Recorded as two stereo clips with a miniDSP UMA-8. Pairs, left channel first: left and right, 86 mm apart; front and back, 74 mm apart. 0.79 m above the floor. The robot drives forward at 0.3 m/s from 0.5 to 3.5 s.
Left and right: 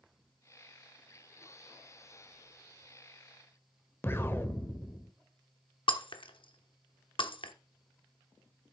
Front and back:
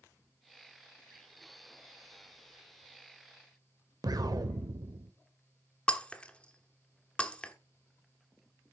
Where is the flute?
No flute in this recording.